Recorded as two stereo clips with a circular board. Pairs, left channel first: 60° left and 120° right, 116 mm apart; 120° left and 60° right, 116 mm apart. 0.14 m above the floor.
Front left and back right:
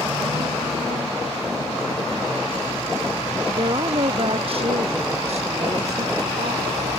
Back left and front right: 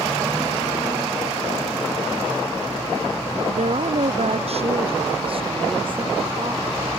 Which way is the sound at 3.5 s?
70° right.